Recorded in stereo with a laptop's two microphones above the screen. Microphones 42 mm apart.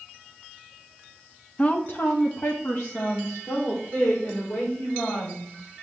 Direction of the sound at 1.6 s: 30° left (ahead or behind).